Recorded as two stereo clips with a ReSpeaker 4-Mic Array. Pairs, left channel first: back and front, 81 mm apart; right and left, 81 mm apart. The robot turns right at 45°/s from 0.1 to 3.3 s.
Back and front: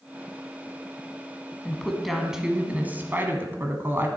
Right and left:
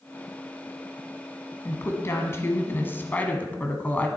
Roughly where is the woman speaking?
Right.